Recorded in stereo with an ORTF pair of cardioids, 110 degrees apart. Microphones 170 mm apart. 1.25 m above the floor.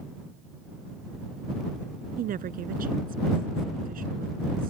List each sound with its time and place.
2.2 s a woman speaking: 55° right